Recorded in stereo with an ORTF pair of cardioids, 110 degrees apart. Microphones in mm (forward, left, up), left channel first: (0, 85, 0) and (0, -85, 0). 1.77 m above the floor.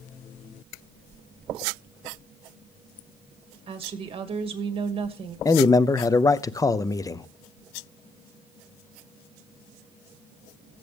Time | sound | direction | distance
3.7 | a woman speaking | 35° right | 2.5 m
5.5 | a man speaking | 20° left | 0.7 m